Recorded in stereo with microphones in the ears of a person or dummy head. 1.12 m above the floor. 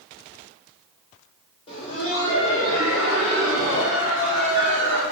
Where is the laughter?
30° left (ahead or behind), 0.7 m; by 5.0 s 65° left (ahead or behind), 3 m.